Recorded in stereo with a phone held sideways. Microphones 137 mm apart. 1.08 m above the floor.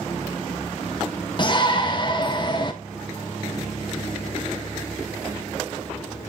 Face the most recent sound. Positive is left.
turn(degrees=35)  # may be behind; listen again after turning